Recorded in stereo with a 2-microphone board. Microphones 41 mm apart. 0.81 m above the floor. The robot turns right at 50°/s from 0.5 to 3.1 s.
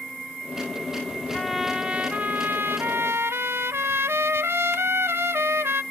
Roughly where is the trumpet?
Behind.